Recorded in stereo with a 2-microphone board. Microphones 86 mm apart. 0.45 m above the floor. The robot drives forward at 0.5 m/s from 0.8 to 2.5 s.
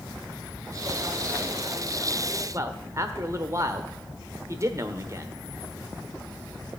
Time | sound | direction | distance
2.5 | a man speaking | 35° right (ahead or behind) | 1.0 m